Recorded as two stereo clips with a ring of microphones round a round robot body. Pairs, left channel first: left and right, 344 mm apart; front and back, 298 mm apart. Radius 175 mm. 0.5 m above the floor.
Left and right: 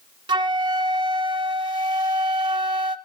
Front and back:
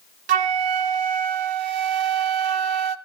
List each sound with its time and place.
0.3 s a flute: 170° right, 0.7 m